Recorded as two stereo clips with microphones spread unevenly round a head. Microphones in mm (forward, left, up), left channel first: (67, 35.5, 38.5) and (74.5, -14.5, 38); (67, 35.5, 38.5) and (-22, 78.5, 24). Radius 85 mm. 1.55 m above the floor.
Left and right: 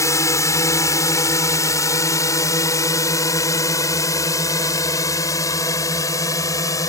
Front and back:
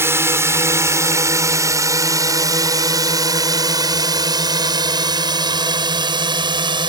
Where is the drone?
90° left; by 6.9 s 115° left.